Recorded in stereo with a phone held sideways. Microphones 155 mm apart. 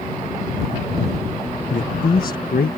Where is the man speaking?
60° left (ahead or behind); by 2.8 s 80° left.